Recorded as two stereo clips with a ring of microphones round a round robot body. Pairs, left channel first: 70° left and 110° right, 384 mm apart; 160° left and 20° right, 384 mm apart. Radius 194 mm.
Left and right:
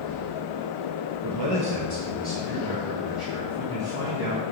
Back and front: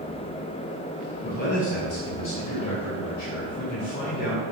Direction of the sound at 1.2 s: 135° right.